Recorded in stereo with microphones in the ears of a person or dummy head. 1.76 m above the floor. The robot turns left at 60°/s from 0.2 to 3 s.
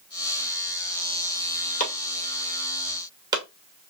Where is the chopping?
45° left (ahead or behind), 2.0 m; by 3.4 s 25° right (ahead or behind), 2.0 m.